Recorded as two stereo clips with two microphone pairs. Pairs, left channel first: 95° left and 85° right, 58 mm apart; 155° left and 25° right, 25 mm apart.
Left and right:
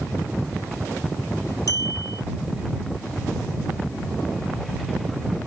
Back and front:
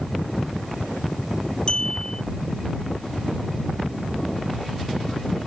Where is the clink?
105° left.